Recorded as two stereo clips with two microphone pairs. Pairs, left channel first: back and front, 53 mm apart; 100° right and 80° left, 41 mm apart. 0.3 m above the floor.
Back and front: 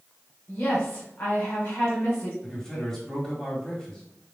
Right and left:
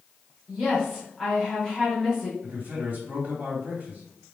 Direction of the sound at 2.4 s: 110° left.